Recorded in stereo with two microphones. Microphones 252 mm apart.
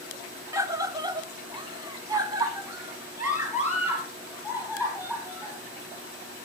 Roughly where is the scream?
Centre.